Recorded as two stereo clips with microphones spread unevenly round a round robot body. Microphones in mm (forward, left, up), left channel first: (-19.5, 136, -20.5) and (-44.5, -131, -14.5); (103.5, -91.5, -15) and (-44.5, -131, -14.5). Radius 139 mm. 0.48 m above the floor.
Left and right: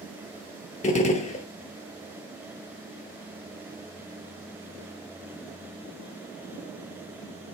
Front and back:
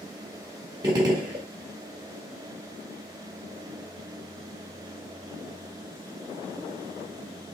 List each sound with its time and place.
0.8 s a gunshot: 135° left, 0.7 m